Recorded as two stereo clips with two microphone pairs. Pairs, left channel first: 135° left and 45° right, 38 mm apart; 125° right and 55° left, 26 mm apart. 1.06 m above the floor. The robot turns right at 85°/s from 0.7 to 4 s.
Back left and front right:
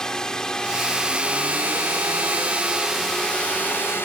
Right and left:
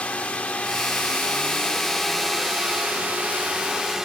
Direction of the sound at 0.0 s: 155° right.